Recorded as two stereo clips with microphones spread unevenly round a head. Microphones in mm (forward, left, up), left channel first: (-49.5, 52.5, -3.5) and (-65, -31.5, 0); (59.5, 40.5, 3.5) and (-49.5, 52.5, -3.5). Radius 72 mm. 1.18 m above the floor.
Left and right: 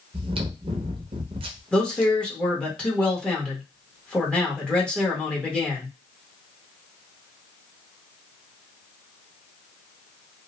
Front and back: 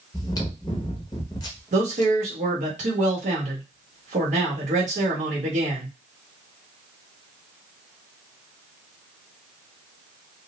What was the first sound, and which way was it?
Chewing, 70° right.